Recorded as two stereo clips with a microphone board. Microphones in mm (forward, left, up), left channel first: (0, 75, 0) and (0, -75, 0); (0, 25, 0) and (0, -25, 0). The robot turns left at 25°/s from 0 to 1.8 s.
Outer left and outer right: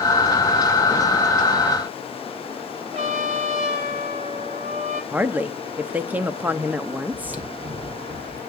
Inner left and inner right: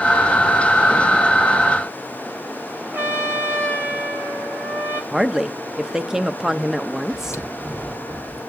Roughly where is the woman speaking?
Centre.